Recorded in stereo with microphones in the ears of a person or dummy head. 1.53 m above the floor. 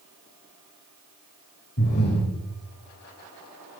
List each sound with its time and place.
1.8 s breathing: 55° left (ahead or behind), 3 m